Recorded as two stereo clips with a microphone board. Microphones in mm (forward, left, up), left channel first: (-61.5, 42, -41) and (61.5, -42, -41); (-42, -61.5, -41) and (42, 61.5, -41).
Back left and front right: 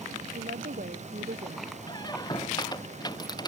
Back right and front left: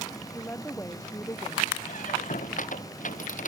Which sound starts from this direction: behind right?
A squeak, at 1.9 s.